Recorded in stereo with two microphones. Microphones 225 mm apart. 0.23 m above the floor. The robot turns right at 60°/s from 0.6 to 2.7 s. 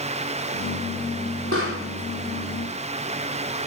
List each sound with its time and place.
1.5 s a pop: 60° right (ahead or behind), 6 m; by 1.8 s 80° right, 6 m